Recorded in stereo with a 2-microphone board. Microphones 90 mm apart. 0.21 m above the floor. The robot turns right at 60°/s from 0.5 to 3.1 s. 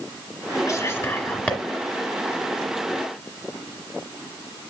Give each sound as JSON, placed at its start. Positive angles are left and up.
{"t": 0.7, "sound": "whispering", "side_deg": 40, "distance_m": 1.2}